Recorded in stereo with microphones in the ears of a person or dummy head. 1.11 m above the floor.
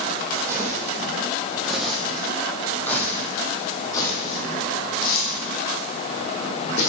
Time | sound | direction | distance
0.5 | footsteps | 15° right (ahead or behind) | 3 m